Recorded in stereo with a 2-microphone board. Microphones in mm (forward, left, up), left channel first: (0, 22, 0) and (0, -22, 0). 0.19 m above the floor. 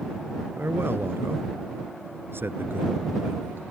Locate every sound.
0.6 s a man speaking: 55° right (ahead or behind); by 3.6 s 50° right (ahead or behind)